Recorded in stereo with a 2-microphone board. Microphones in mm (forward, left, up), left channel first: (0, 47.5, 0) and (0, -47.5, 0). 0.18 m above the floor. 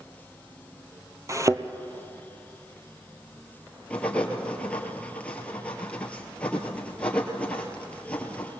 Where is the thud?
35° right (ahead or behind), 1.0 m.